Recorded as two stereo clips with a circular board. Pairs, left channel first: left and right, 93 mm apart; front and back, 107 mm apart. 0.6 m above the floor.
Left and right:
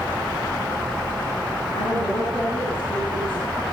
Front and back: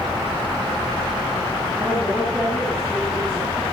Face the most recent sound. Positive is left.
turn(degrees=85)